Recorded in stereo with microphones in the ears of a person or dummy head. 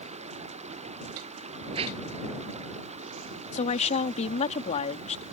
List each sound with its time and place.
0.0 s running water: 35° right (ahead or behind)
1.7 s a whoosh: 30° right (ahead or behind)
3.5 s a woman speaking: 35° left (ahead or behind)